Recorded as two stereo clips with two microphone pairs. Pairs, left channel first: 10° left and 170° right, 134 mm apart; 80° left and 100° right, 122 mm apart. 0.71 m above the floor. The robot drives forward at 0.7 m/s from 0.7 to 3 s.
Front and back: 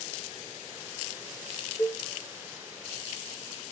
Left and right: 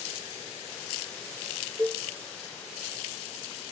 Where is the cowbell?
50° right, 0.5 m; by 2.0 s 75° right, 0.5 m.